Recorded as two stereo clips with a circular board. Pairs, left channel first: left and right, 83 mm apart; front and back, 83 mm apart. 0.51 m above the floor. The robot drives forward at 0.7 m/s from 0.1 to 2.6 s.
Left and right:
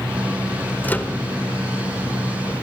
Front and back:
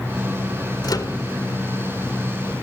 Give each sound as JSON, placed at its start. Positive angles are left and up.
{"t": 0.8, "sound": "a microwave", "azimuth_deg": 25, "distance_m": 1.7}